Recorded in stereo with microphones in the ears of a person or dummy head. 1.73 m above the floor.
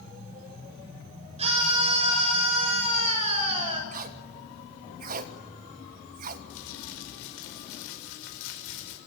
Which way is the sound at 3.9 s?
50° right (ahead or behind).